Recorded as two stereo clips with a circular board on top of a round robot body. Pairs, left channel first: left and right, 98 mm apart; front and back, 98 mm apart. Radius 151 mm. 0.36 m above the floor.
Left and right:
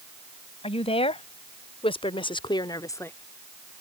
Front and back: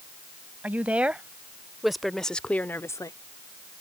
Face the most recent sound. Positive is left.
turn(degrees=30)